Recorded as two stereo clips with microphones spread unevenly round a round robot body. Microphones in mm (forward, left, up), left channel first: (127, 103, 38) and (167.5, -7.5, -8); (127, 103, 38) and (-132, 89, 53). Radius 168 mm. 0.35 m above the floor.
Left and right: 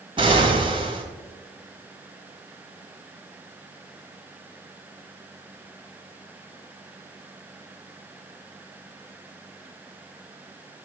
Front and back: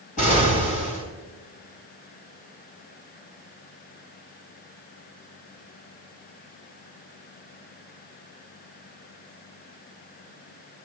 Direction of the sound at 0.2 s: 55° right.